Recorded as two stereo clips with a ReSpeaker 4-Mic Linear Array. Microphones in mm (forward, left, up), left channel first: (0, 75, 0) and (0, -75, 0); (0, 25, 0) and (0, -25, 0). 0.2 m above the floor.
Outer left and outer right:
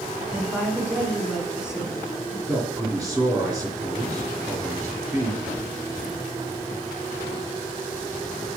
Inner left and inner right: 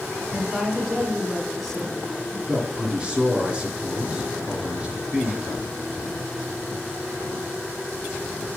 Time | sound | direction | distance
0.3 | a woman speaking | 5° right (ahead or behind) | 1.8 m
2.5 | a man speaking | 5° right (ahead or behind) | 1.8 m